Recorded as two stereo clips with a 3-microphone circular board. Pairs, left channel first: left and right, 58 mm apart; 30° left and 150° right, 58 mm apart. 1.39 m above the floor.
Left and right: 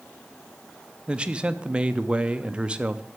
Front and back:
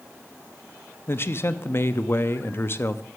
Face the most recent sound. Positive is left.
turn(degrees=-20)